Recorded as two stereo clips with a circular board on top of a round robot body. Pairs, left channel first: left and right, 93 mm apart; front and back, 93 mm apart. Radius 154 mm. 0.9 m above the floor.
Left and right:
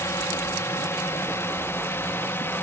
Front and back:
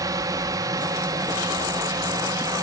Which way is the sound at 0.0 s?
145° left.